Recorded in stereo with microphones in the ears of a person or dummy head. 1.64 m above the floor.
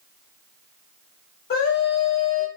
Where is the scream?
50° left (ahead or behind), 1.5 m.